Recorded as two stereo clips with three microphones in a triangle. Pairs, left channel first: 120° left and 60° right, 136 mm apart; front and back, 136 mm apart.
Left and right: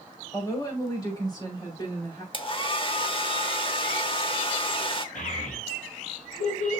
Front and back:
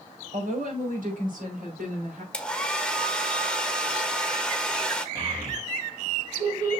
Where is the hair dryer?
80° left, 1.1 m.